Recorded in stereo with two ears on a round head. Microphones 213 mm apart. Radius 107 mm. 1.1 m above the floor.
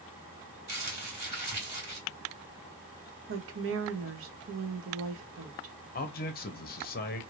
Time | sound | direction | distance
0.7 | crumpling | 15° right (ahead or behind) | 1.9 m
3.3 | a woman speaking | 60° right (ahead or behind) | 0.9 m
6.0 | a man speaking | 40° left (ahead or behind) | 0.8 m